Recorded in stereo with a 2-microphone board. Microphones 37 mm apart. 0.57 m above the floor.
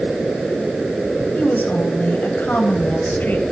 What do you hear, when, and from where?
1.3 s a woman speaking: 60° left (ahead or behind), 2.5 m